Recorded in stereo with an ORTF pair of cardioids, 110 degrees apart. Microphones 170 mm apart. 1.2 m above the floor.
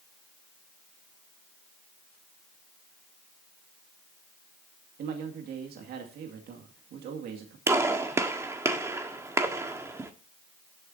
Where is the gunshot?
15° right, 1.5 m.